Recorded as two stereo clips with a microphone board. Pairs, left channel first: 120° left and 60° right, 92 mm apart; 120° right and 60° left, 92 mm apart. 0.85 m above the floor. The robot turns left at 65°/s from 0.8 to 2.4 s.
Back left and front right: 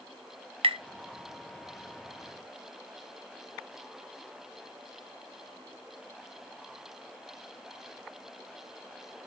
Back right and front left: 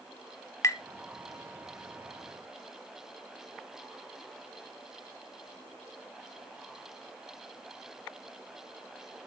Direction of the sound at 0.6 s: 65° right.